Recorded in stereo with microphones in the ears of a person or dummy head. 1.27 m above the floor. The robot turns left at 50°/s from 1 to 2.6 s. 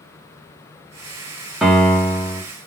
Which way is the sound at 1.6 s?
175° right.